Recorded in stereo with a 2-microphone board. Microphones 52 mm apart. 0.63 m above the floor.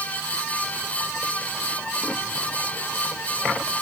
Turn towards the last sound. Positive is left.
No sound to turn to.